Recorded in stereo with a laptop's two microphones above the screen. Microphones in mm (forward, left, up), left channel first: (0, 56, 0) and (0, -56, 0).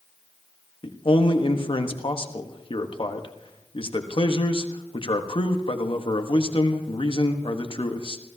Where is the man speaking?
50° left (ahead or behind), 1.1 m.